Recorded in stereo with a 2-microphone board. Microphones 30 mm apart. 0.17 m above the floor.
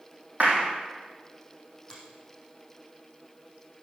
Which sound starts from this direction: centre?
A finger snap, at 1.9 s.